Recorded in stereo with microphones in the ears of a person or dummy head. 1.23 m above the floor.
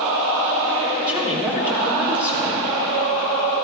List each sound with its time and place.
1.1 s a woman speaking: 20° right (ahead or behind), 4.5 m